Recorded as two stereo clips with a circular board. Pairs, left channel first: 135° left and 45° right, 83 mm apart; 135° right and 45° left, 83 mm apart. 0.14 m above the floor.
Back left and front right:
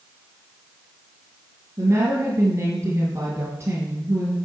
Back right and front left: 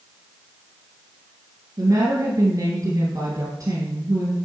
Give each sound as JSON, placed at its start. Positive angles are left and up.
{"t": 1.8, "sound": "a woman speaking", "azimuth_deg": 5, "distance_m": 2.0}